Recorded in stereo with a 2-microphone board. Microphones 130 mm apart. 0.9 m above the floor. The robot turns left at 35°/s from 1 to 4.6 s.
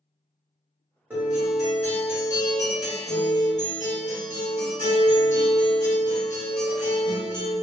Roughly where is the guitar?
Behind.